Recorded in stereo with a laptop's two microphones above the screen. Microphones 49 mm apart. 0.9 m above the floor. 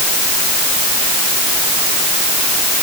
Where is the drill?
I don't hear a drill.